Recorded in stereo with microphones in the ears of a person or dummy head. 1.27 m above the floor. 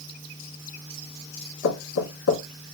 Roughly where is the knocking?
Left.